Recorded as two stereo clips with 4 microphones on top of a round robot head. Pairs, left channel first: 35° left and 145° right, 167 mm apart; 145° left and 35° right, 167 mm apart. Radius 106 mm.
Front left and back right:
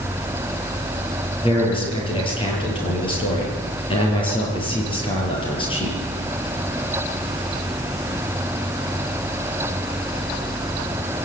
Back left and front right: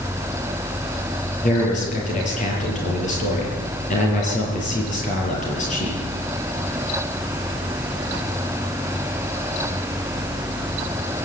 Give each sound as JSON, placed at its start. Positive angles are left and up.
{"t": 1.4, "sound": "a man speaking", "azimuth_deg": 95, "distance_m": 9.0}